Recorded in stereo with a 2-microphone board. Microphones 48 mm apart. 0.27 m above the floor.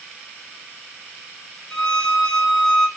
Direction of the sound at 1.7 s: 15° left (ahead or behind).